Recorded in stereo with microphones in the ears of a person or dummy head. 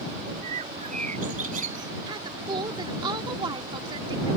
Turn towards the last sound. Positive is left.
turn(degrees=-25)  # may be behind; listen again after turning